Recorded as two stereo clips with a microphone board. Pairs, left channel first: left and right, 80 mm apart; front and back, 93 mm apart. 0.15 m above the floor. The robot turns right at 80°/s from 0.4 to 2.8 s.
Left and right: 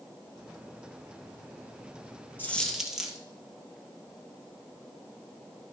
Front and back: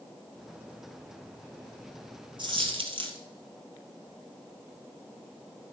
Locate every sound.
2.4 s a dropped coin: 155° left, 1.6 m; by 3.2 s 175° right, 1.6 m